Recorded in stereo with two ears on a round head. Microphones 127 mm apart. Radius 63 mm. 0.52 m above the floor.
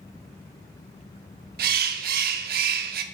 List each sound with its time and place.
1.6 s a bird: 70° right (ahead or behind), 0.6 m